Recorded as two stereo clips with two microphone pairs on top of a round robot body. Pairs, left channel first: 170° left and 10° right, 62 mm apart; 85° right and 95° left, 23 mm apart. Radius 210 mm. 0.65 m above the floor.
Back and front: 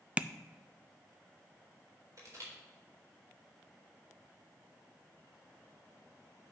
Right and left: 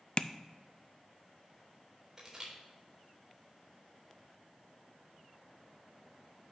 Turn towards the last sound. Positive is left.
turn(degrees=25)